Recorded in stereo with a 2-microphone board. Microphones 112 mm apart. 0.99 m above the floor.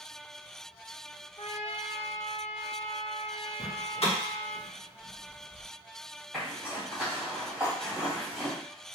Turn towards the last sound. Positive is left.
turn(degrees=-10)  # may be behind; listen again after turning